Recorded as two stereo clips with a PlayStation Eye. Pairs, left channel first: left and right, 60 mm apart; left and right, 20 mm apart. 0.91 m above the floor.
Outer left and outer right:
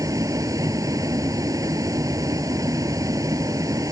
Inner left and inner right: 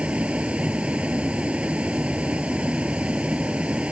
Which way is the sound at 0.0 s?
75° right (ahead or behind).